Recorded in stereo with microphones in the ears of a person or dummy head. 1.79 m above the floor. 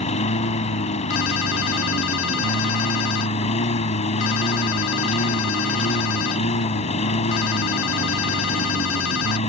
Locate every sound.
0.0 s a lawn mower: 40° left (ahead or behind)
1.1 s a ringtone: 80° left